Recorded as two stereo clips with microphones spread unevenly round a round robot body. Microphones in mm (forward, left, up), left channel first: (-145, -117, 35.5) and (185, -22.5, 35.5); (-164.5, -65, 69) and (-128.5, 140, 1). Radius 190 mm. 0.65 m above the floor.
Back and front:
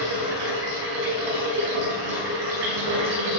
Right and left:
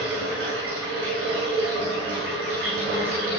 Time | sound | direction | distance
0.0 | running water | 5° left | 4.5 m